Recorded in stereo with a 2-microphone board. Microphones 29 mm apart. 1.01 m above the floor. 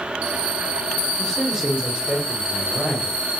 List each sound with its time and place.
1.2 s a man speaking: 5° left (ahead or behind), 0.8 m; by 3.2 s 65° right (ahead or behind), 1.3 m